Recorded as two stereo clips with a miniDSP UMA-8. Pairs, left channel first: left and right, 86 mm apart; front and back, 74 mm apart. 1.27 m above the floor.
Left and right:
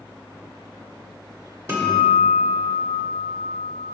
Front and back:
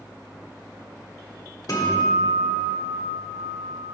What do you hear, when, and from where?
1.7 s a guitar: 35° right, 1.4 m